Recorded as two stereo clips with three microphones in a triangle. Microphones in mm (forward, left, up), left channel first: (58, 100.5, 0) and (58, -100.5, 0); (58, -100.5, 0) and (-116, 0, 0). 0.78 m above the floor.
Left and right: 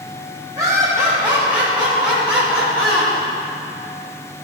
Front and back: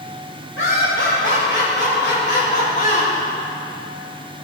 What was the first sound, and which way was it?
Laughter, 35° right.